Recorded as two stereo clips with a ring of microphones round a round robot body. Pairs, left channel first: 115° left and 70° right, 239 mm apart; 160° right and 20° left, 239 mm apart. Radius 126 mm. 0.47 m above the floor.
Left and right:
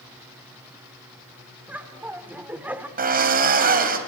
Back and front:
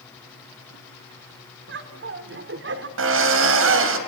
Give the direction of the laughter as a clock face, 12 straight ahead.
12 o'clock.